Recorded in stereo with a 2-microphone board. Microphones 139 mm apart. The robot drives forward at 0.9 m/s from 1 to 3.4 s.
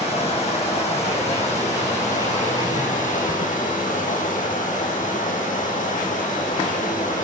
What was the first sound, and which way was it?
Running water, 50° left (ahead or behind).